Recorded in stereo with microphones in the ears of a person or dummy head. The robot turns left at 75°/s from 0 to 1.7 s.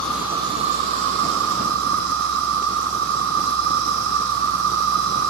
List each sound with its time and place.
0.0 s an insect: 10° left, 0.9 m; by 5.3 s 120° right, 0.9 m